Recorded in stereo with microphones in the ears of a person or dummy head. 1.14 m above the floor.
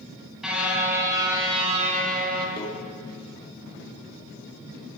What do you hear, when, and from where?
0.4 s a car horn: 5° right (ahead or behind), 4 m; by 2.5 s 55° right (ahead or behind), 3 m
2.6 s a microwave: 25° left (ahead or behind), 2 m